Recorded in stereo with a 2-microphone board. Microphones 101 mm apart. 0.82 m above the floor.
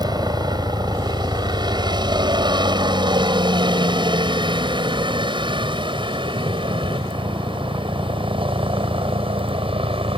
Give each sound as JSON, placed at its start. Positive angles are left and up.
{"t": 0.0, "sound": "a helicopter", "side_deg": -40}